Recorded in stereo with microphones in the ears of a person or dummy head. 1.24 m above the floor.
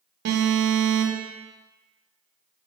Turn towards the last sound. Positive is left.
turn(degrees=-60)  # may be behind; listen again after turning